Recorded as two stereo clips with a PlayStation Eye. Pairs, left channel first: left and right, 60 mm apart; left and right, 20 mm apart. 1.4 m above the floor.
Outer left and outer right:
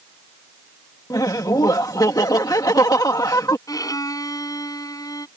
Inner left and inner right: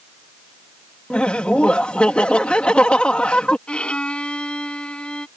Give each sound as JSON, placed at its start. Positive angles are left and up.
{"t": 1.1, "sound": "laughter", "side_deg": 80}
{"t": 3.7, "sound": "a violin", "side_deg": 70}